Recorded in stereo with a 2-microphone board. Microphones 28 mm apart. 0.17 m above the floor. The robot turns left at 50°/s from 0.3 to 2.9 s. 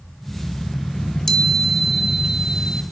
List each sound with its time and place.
0.9 s a chime: 40° left, 1.4 m; by 2.8 s 55° right, 1.4 m